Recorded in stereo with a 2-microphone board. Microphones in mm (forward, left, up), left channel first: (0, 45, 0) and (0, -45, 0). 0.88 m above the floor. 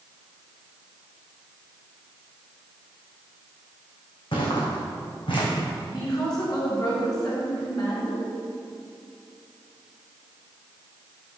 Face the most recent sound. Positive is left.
turn(degrees=50)  # may be behind; listen again after turning